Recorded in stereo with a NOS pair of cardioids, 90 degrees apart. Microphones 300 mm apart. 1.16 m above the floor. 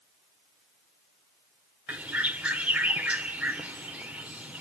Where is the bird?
5° right, 1.7 m.